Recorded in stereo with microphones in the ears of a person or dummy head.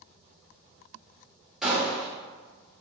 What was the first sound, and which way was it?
A gunshot, 5° right (ahead or behind).